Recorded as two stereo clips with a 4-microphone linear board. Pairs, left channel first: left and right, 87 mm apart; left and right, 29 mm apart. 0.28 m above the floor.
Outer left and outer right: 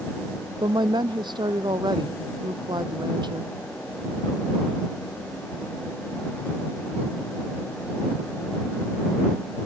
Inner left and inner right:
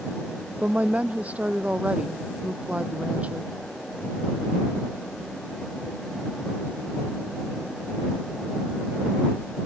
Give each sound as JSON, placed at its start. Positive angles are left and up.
{"t": 0.6, "sound": "a woman speaking", "side_deg": -55}